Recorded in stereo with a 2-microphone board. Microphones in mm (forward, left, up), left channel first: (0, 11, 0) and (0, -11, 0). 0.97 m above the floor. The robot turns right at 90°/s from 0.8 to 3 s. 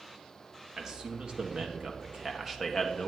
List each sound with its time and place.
0.8 s a man speaking: 160° right, 1.3 m; by 3.1 s 35° left, 1.3 m